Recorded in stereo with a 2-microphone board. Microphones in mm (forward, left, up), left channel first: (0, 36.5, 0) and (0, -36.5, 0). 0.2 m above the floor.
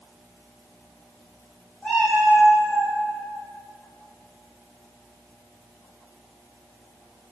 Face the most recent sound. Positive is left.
turn(degrees=30)  # may be behind; listen again after turning